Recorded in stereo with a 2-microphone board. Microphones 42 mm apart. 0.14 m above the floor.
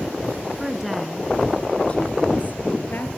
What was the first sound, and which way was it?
A woman speaking, 10° right (ahead or behind).